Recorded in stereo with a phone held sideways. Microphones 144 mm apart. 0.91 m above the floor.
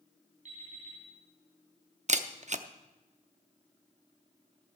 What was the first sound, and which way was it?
An alarm clock, 60° right (ahead or behind).